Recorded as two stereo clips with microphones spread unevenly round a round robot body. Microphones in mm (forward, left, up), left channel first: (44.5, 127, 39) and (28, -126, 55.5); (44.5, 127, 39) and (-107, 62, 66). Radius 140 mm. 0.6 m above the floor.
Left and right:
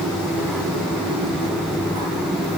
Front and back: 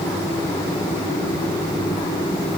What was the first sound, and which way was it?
Only background noise.